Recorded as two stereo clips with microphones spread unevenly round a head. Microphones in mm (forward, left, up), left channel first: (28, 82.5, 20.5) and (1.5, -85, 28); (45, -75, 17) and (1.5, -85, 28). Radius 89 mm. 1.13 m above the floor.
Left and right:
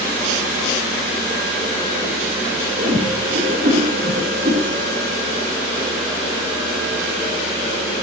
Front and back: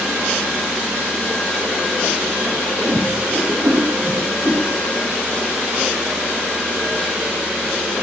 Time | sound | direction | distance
2.8 | a whoosh | 140° right | 3 m